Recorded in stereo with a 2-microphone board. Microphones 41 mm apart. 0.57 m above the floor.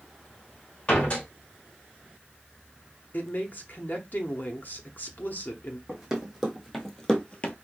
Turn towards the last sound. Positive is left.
turn(degrees=40)  # may be behind; listen again after turning